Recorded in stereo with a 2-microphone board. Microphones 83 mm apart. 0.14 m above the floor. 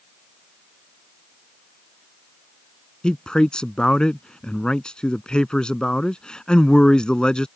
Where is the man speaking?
10° left (ahead or behind).